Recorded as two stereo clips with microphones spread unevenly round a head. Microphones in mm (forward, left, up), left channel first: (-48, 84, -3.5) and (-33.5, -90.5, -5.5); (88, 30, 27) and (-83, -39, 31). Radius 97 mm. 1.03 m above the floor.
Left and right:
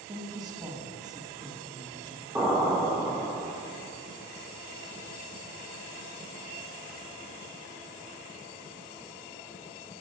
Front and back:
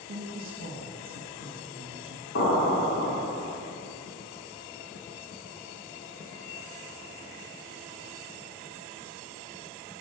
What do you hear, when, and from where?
0.1 s a woman speaking: 155° right, 1.3 m
2.4 s an explosion: 5° right, 2.0 m